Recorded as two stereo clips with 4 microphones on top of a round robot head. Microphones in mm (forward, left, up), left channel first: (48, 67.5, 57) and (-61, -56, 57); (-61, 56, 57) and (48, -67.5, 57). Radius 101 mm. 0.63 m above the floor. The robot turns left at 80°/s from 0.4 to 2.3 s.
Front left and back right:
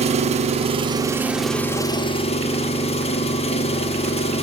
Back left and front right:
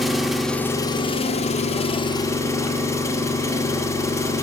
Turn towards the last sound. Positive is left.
turn(degrees=70)